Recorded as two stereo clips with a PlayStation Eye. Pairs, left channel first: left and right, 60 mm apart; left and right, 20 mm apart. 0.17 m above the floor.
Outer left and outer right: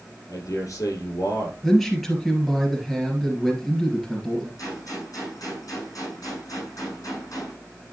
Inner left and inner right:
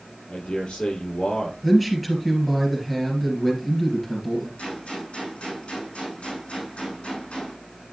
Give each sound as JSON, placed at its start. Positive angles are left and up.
{"t": 0.3, "sound": "a man speaking", "side_deg": 70, "distance_m": 5.0}
{"t": 1.6, "sound": "a man speaking", "side_deg": 0, "distance_m": 3.0}
{"t": 4.6, "sound": "a gunshot", "side_deg": 80, "distance_m": 6.0}